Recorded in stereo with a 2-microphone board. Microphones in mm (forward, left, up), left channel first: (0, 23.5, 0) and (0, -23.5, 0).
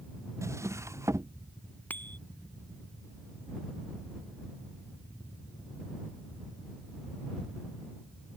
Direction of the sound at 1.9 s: 40° left (ahead or behind).